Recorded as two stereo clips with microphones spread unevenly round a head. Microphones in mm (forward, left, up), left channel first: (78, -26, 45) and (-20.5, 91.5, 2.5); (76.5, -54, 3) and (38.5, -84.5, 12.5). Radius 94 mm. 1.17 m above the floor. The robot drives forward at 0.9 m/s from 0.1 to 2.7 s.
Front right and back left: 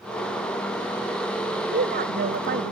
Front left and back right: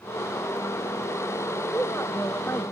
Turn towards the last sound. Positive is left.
turn(degrees=115)